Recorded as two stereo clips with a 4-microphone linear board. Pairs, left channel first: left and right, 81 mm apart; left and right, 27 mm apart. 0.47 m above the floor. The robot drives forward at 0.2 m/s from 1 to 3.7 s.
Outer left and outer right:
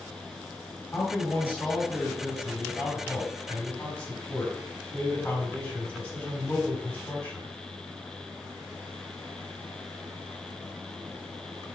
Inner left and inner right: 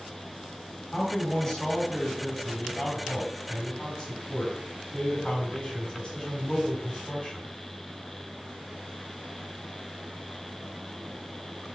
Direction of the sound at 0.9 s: 25° left (ahead or behind).